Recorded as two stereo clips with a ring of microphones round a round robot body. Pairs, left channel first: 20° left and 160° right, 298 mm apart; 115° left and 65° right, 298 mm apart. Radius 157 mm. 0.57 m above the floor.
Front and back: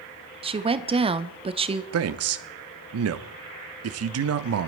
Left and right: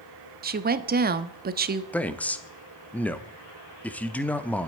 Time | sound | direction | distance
0.4 | a woman speaking | 100° right | 0.9 m
1.9 | a man speaking | 165° right | 0.9 m